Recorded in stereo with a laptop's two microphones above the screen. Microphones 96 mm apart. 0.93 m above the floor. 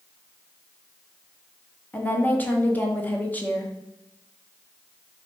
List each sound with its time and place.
1.9 s a woman speaking: 15° left (ahead or behind), 0.6 m